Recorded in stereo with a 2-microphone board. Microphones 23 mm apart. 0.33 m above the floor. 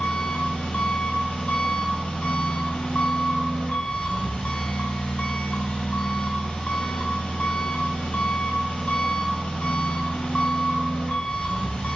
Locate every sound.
0.0 s an engine running: 80° left, 0.8 m